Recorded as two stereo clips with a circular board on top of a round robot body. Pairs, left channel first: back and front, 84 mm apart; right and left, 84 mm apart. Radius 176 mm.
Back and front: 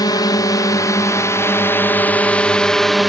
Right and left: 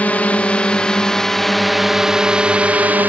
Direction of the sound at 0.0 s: 160° right.